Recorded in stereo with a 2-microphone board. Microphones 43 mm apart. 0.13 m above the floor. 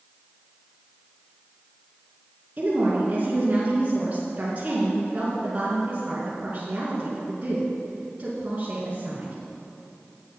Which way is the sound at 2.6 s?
35° right (ahead or behind).